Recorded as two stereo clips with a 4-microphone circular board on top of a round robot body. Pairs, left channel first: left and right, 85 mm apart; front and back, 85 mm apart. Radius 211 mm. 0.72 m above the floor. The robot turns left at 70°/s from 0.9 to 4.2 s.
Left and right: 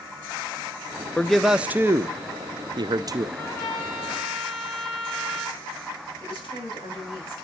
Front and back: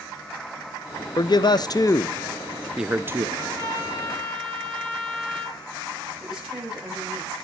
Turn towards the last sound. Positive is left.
turn(degrees=95)